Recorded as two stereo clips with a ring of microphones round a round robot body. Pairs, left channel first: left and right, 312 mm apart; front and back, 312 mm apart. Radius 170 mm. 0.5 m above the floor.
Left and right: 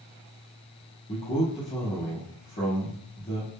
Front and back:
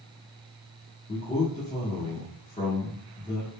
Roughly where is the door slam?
I don't hear a door slam.